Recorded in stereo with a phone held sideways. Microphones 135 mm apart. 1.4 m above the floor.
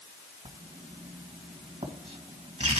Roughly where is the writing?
Right.